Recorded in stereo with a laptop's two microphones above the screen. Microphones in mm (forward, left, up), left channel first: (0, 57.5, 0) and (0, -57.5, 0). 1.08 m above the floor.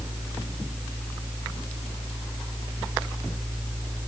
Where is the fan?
20° right (ahead or behind), 0.9 m.